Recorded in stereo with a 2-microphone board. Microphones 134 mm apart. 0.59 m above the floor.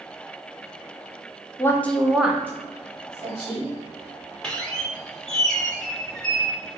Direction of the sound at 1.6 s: 20° left (ahead or behind).